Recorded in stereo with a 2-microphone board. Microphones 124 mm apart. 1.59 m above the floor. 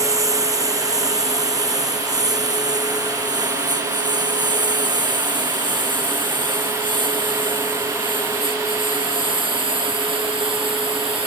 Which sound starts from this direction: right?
A lawn mower, at 0.0 s.